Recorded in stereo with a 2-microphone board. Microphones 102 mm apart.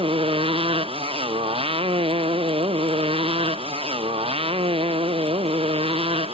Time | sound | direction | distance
0.0 | a motorcycle | 65° right (ahead or behind) | ?